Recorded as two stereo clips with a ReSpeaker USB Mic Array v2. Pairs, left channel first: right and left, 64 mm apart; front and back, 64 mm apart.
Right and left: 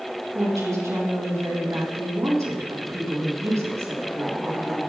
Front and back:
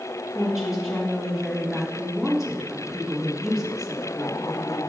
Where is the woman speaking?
95° left, 3 m.